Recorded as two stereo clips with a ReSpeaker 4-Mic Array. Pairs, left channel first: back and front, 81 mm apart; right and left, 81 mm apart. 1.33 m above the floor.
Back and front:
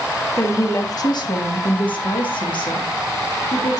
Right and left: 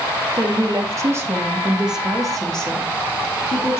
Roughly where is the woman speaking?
Behind left.